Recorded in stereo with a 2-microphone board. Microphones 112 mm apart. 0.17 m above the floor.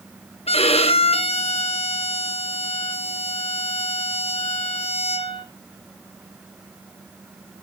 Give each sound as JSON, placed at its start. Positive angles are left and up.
{"t": 0.5, "sound": "a violin", "side_deg": 65, "distance_m": 0.8}